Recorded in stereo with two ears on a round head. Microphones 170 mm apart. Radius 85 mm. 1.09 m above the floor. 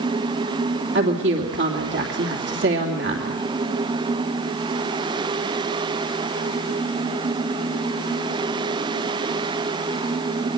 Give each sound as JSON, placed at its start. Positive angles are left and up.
{"t": 0.9, "sound": "a woman speaking", "side_deg": -65, "distance_m": 3.0}